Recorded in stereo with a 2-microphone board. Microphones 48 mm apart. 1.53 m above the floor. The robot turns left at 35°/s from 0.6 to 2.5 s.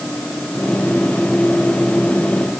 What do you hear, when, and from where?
Only background noise.